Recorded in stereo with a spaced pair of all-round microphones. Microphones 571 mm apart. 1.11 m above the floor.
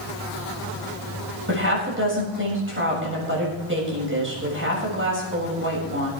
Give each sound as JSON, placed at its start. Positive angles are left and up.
{"t": 1.5, "sound": "a woman speaking", "side_deg": -20, "distance_m": 6.5}